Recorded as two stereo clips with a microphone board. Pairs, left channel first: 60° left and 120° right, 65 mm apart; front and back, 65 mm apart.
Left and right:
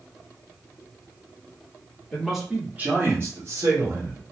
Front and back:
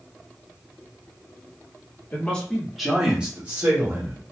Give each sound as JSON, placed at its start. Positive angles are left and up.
{"t": 2.1, "sound": "a man speaking", "azimuth_deg": -20, "distance_m": 1.1}